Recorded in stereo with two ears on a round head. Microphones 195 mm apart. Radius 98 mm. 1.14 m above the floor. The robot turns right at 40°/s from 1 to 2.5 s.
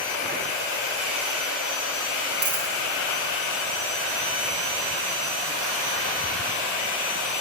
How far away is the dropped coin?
About 1.9 m.